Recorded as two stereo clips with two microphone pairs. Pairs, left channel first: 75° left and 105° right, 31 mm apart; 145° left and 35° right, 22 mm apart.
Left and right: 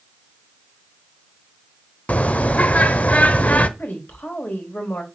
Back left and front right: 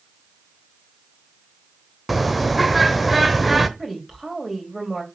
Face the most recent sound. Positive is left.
turn(degrees=55)